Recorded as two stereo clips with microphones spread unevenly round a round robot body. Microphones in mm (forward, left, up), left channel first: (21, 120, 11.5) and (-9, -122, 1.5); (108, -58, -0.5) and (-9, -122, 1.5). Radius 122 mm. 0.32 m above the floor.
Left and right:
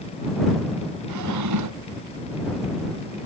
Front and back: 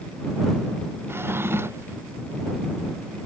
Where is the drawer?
80° right.